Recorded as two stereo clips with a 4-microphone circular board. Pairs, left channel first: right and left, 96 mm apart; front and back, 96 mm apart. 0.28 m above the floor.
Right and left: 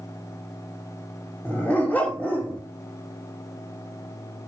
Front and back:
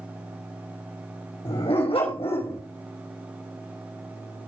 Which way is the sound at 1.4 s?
15° right.